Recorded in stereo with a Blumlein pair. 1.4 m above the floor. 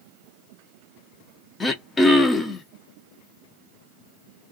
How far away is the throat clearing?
About 0.6 m.